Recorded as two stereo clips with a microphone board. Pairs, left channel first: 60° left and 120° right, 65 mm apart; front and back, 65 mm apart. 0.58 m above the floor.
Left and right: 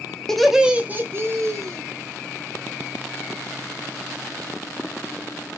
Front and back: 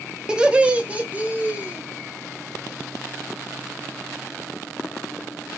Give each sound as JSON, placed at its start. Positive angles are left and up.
{"t": 0.3, "sound": "laughter", "azimuth_deg": 125, "distance_m": 0.6}